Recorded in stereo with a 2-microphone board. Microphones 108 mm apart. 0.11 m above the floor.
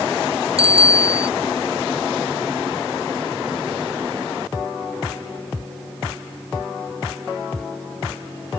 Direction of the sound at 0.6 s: 65° right (ahead or behind).